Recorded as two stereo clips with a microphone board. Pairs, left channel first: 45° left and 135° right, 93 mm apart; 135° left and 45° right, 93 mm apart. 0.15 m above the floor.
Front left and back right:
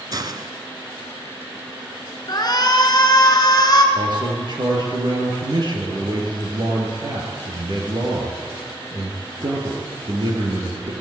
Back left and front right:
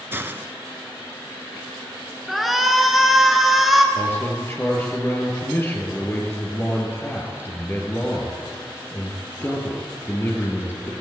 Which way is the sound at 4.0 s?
165° right.